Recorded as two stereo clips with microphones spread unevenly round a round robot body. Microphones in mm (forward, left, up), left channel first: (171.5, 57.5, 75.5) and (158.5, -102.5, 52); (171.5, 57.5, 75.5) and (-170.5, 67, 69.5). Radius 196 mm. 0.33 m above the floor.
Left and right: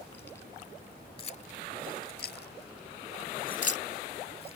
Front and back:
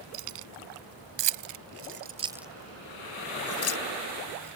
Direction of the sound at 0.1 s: 170° left.